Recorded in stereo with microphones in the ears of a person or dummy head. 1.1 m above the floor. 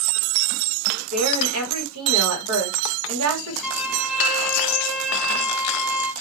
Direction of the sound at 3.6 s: 5° left (ahead or behind).